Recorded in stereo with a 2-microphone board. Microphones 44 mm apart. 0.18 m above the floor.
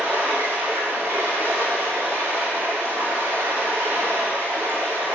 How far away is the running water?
About 3 m.